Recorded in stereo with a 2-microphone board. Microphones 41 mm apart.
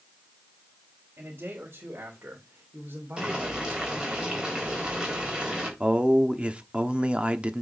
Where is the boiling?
15° right (ahead or behind), 3.5 m.